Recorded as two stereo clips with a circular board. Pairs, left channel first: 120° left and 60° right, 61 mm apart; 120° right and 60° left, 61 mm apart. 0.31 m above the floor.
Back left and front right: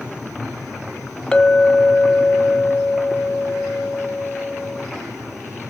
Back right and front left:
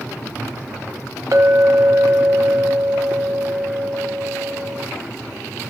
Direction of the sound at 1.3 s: 45° left.